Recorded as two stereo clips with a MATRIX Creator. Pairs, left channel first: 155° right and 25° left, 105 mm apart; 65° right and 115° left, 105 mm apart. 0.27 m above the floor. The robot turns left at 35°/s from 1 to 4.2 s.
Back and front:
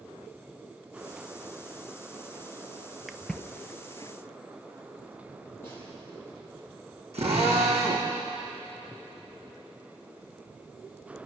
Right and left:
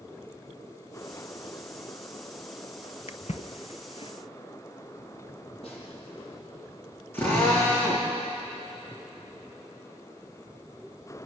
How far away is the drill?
About 6.5 m.